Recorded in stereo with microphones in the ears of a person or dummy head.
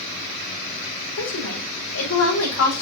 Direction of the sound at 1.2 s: 85° left.